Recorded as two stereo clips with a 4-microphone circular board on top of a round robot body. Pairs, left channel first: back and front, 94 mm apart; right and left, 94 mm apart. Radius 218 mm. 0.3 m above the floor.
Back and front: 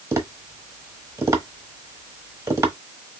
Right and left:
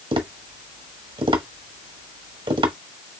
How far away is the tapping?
About 1.4 m.